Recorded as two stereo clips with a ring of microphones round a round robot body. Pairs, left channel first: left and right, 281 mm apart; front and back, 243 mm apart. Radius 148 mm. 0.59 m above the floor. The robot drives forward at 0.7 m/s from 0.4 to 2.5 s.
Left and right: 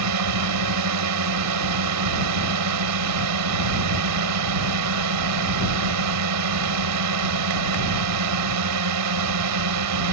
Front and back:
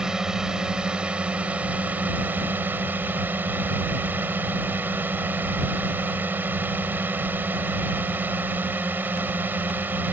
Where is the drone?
95° right.